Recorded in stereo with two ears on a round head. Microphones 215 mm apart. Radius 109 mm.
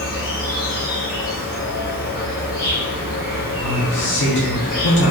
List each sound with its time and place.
0.0 s an insect: 40° left (ahead or behind), 1.7 m
3.6 s a man speaking: 50° left (ahead or behind), 0.9 m